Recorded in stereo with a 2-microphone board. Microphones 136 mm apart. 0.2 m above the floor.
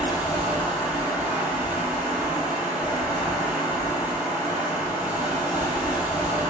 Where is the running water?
10° right (ahead or behind), 1.0 m.